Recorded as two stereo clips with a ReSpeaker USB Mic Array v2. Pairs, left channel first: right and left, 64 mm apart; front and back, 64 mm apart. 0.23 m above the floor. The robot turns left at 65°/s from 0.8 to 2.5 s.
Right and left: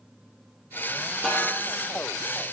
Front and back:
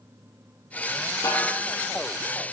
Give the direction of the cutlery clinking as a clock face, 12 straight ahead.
No cutlery clinking in this recording.